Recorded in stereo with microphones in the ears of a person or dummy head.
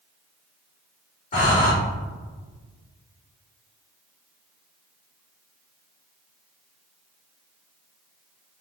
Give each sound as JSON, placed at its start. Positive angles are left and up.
{"t": 1.3, "sound": "breathing", "side_deg": 35, "distance_m": 0.9}